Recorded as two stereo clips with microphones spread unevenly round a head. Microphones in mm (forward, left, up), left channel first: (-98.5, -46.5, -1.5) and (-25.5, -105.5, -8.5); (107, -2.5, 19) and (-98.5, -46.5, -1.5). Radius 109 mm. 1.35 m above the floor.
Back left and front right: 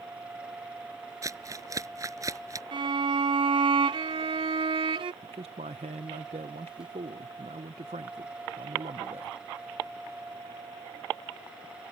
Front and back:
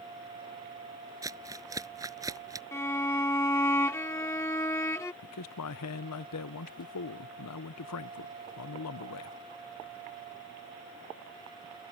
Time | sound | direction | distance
1.2 | crumpling | 95° right | ?
2.7 | a violin | 60° right | ?
5.2 | a man speaking | 5° left | ?